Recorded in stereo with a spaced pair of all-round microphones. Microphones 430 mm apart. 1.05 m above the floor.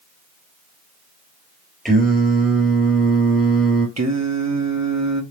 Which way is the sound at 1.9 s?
Centre (ahead or behind).